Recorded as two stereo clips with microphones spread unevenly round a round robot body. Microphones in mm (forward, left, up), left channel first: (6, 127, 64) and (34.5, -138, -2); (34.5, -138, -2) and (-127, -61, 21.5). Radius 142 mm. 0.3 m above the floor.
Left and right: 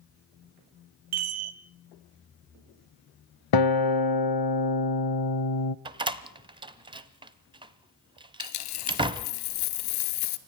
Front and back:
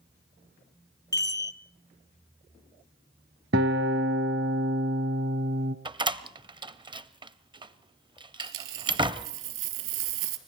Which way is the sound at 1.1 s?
95° right.